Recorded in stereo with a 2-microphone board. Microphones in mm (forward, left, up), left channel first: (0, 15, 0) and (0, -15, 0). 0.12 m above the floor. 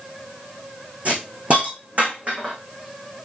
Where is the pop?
No pop in this recording.